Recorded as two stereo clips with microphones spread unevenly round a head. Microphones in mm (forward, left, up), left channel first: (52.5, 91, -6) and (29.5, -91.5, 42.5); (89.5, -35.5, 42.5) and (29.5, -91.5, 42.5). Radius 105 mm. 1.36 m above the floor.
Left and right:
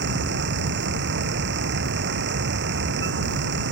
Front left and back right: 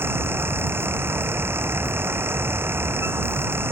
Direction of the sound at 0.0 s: 75° right.